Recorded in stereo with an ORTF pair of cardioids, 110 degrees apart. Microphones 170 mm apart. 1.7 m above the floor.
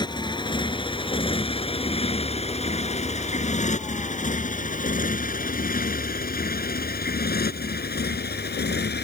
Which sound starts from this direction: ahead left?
A motorcycle, at 0.0 s.